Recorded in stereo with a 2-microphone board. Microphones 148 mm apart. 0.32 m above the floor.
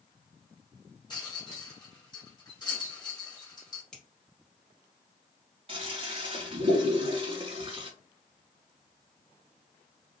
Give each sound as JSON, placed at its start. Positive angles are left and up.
{"t": 1.1, "sound": "a rattle", "side_deg": 30, "distance_m": 1.4}
{"t": 3.9, "sound": "a finger snap", "side_deg": 5, "distance_m": 1.2}
{"t": 5.7, "sound": "a toilet flushing", "side_deg": -40, "distance_m": 0.9}